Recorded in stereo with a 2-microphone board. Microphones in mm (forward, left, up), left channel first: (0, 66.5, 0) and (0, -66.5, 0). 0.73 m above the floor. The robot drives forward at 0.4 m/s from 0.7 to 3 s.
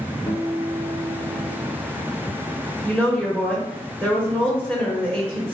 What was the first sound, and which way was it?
A guitar, 30° left (ahead or behind).